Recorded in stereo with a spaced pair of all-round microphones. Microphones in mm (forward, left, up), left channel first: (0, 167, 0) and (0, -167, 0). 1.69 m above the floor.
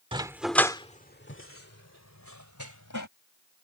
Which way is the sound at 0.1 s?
15° right (ahead or behind).